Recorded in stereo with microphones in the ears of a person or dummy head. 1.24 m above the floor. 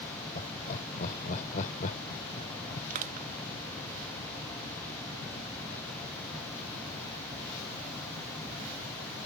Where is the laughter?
40° left (ahead or behind); by 2.8 s 50° left (ahead or behind).